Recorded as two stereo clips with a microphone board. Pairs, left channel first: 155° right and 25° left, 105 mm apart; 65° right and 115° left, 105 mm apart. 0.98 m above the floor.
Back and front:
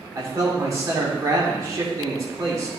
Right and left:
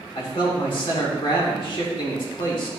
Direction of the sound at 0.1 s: 35° right.